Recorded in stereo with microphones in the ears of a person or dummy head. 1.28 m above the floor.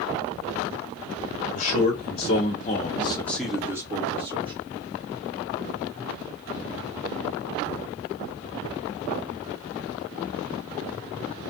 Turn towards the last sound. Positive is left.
turn(degrees=-30)  # may be behind; listen again after turning